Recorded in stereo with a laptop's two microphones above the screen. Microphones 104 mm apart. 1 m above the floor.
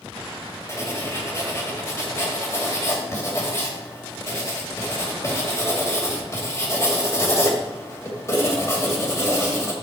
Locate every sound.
0.7 s writing: 25° left (ahead or behind), 2 m